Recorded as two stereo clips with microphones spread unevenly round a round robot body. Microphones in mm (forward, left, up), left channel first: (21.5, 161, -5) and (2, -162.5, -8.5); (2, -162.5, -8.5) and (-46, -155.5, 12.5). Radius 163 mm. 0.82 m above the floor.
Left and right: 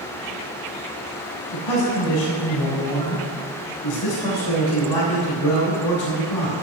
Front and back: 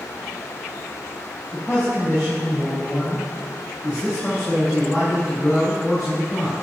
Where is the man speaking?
75° left, 3.5 m.